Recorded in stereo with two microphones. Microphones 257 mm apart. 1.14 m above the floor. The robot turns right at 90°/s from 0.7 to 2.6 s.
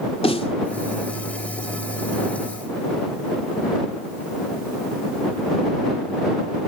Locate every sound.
0.2 s a snare drum: 20° left (ahead or behind)